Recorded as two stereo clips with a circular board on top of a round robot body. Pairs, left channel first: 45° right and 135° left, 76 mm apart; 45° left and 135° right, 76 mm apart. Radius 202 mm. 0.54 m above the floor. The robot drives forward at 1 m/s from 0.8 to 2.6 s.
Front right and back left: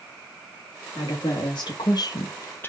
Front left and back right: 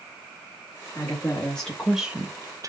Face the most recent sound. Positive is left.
turn(degrees=-105)